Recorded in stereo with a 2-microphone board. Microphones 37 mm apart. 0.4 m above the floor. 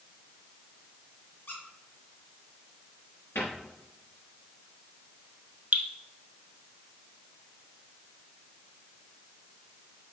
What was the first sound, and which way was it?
A squeak, 65° left (ahead or behind).